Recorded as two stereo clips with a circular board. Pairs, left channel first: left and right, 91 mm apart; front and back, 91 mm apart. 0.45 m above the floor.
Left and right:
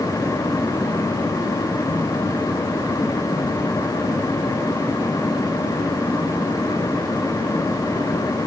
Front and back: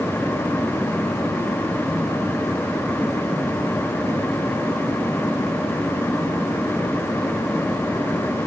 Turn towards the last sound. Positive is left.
No sound to turn to.